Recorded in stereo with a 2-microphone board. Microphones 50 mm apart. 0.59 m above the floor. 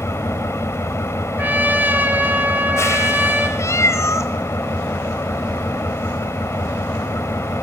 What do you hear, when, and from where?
0.0 s an engine running: 70° left (ahead or behind), 3 m
1.4 s a trumpet: 40° right (ahead or behind), 3 m
3.6 s a cat meowing: 90° left, 2 m